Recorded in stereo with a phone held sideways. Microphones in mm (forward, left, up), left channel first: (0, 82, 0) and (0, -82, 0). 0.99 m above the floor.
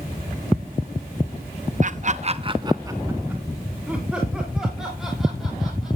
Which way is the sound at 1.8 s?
50° right (ahead or behind).